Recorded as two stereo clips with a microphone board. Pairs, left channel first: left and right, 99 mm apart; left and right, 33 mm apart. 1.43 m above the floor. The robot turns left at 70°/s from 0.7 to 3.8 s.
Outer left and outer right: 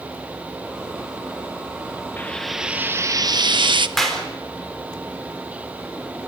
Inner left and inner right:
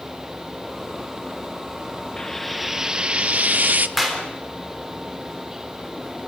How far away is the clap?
About 4 m.